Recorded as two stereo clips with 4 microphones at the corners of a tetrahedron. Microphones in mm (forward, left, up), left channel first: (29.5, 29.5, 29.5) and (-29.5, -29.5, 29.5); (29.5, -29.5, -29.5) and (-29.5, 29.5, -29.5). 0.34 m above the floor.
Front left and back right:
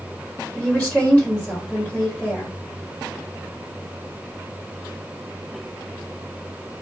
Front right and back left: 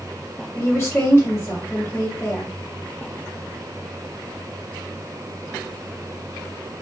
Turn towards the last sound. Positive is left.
turn(degrees=-15)